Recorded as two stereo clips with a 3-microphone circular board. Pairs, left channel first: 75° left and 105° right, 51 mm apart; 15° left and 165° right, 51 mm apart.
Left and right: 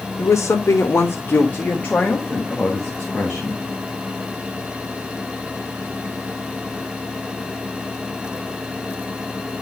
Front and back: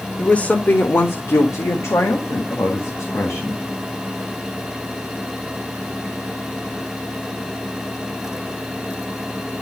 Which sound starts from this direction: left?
A woman speaking, at 0.2 s.